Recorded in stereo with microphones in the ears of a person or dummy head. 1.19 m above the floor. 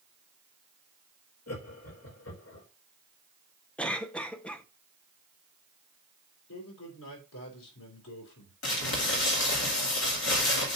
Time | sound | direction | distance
1.5 | laughter | 80° left | 3 m
3.8 | a cough | 10° left (ahead or behind) | 0.7 m
6.5 | a man speaking | 85° left | 4.5 m
8.6 | crumpling | 65° left (ahead or behind) | 2.5 m